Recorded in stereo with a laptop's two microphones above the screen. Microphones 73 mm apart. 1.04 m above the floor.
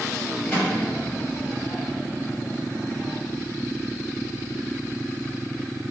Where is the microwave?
10° left (ahead or behind), 1.3 m.